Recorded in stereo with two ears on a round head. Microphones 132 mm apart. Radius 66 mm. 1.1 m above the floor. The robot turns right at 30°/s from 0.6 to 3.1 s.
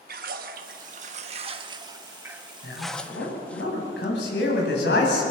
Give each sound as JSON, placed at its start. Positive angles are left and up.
{"t": 0.1, "sound": "a splash", "azimuth_deg": -65, "distance_m": 1.3}
{"t": 2.6, "sound": "a man speaking", "side_deg": 75, "distance_m": 8.5}